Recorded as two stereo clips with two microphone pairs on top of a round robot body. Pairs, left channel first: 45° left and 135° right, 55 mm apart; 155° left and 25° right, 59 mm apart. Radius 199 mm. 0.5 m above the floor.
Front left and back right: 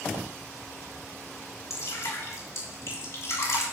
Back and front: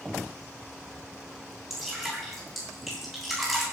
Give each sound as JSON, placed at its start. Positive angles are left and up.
{"t": 1.7, "sound": "dripping", "azimuth_deg": 65, "distance_m": 7.0}